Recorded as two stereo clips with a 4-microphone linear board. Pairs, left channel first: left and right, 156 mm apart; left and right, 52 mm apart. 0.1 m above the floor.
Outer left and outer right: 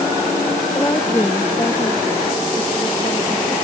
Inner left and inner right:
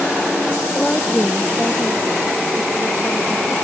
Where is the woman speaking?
15° left (ahead or behind); by 3.5 s 35° left (ahead or behind).